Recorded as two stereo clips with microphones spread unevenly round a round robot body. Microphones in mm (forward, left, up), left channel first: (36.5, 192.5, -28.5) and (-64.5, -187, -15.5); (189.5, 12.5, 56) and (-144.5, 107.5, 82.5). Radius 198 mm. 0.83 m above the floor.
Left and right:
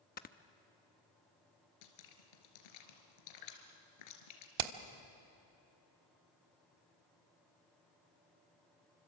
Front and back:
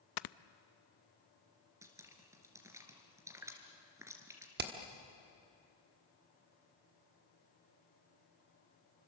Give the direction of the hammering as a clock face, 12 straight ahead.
4 o'clock.